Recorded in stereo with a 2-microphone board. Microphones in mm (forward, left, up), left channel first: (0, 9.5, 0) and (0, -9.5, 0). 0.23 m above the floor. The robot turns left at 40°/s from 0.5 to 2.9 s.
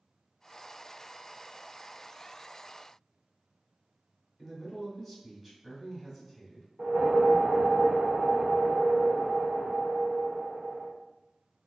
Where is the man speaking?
10° right (ahead or behind), 1.5 m.